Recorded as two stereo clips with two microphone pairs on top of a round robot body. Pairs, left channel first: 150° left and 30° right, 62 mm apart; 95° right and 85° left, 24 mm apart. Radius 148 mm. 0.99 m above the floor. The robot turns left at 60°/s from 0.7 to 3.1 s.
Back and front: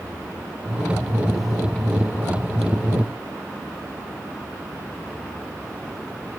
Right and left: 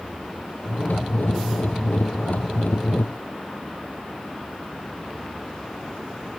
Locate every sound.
Only background noise.